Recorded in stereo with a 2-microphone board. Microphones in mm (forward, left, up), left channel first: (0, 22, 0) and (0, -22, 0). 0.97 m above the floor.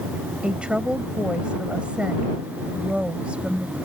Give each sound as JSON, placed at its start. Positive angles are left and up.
{"t": 0.4, "sound": "a woman speaking", "side_deg": -25}